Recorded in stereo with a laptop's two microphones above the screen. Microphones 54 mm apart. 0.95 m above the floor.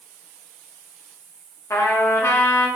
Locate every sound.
1.7 s a trumpet: 65° left (ahead or behind), 0.6 m